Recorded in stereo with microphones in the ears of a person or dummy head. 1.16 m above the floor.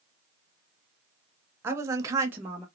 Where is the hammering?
No hammering in this recording.